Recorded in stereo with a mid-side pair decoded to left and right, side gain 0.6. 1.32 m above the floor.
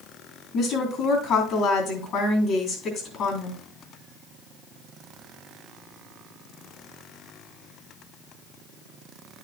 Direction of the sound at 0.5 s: 55° left.